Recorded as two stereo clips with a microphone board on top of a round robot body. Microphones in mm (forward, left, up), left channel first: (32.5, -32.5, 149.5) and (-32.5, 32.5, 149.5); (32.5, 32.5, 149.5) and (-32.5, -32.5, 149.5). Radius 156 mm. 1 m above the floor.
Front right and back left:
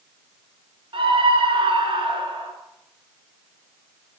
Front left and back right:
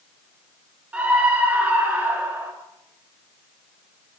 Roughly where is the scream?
Behind left.